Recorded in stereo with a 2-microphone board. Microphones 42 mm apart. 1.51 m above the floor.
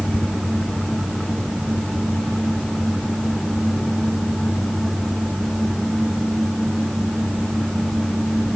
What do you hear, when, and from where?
Only background noise.